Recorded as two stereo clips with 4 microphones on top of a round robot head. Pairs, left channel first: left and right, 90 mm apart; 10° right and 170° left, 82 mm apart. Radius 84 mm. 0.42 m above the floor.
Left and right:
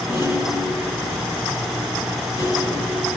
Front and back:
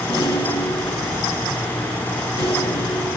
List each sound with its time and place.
0.1 s a rattle: 30° right, 4 m